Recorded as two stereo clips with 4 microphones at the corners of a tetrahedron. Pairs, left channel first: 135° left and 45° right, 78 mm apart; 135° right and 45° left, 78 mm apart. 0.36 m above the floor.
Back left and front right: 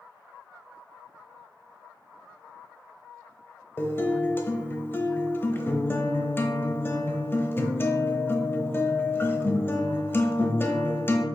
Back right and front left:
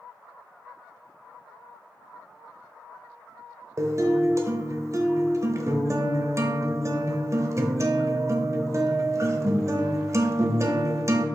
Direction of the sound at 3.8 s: 85° left.